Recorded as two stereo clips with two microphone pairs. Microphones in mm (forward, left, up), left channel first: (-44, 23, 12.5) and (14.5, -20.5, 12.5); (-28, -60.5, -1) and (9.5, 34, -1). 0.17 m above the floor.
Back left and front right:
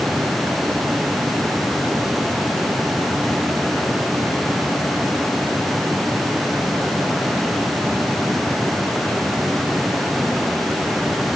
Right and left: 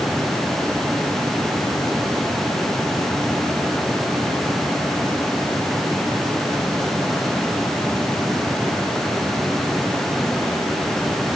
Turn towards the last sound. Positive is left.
No sound to turn to.